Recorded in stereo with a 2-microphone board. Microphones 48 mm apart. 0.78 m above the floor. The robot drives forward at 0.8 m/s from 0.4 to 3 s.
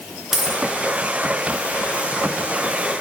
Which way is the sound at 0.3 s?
10° right (ahead or behind).